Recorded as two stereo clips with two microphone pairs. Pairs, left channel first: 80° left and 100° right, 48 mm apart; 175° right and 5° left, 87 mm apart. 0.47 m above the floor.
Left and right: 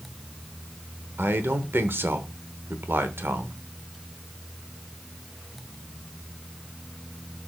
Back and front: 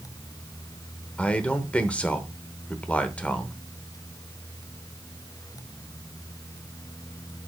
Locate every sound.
1.2 s a man speaking: 105° right, 1.1 m